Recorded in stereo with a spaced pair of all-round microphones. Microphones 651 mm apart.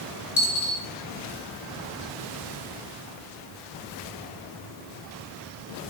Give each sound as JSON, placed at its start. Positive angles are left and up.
{"t": 0.4, "sound": "a dropped coin", "side_deg": 25, "distance_m": 3.0}